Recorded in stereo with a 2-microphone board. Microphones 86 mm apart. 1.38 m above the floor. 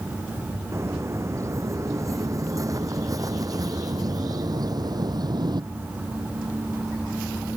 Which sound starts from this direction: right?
Footsteps, at 0.7 s.